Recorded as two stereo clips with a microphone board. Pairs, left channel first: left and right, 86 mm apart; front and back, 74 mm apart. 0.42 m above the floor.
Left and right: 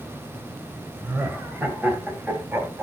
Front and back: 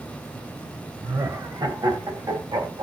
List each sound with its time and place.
1.0 s laughter: 155° right, 2.5 m; by 2.8 s 160° right, 3.5 m